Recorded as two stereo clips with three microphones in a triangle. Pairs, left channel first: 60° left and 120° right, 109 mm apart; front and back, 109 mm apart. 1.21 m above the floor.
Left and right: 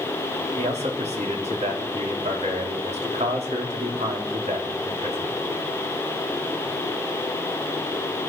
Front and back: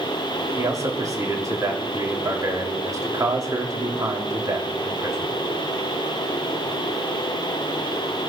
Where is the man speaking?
120° right, 3 m.